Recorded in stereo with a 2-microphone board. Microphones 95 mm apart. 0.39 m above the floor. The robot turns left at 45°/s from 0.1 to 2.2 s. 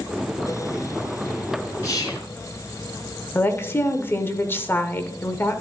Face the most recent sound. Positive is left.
turn(degrees=25)  # may be behind; listen again after turning